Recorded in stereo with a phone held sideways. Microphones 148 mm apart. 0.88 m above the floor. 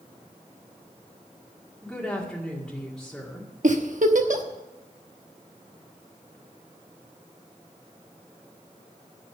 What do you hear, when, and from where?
1.8 s a woman speaking: 5° left (ahead or behind), 2 m
3.6 s a giggle: 65° right (ahead or behind), 1.1 m